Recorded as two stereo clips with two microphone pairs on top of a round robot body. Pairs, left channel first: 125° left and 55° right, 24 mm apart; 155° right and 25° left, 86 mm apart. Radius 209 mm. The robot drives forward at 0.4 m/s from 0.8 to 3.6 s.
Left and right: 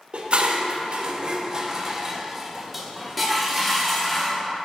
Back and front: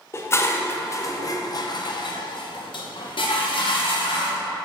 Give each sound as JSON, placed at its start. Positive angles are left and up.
{"t": 0.1, "sound": "dishes clattering", "azimuth_deg": -95, "distance_m": 0.8}